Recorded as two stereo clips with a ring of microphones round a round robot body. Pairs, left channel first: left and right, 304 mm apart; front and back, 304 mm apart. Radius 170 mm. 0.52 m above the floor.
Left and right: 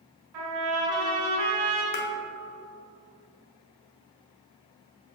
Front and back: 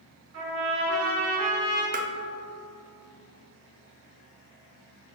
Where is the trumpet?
125° right, 2 m.